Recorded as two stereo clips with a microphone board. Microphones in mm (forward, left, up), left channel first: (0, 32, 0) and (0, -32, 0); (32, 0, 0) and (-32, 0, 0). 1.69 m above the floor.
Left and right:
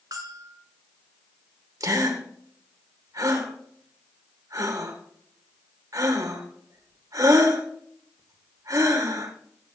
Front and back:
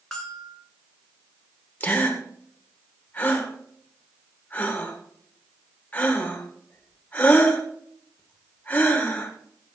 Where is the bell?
85° right, 2.5 m.